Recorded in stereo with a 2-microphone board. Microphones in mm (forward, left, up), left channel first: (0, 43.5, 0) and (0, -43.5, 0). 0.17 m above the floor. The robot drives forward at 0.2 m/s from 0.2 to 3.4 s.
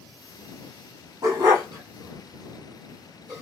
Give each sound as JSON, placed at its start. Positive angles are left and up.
{"t": 1.2, "sound": "a dog barking", "side_deg": -40, "distance_m": 1.6}